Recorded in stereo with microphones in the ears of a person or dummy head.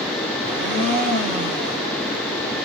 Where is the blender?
40° right (ahead or behind), 1.5 m.